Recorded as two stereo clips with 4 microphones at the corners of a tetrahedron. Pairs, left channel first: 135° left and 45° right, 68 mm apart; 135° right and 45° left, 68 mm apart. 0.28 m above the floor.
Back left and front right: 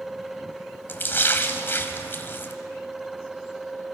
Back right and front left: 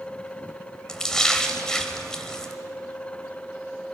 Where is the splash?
150° left, 1.3 m.